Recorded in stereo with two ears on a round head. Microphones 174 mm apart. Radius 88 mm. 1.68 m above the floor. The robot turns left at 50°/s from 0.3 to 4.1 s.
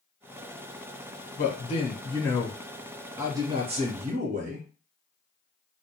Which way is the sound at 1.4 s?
65° left.